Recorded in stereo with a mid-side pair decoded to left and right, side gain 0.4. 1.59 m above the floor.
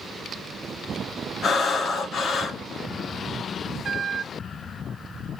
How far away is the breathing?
About 0.9 m.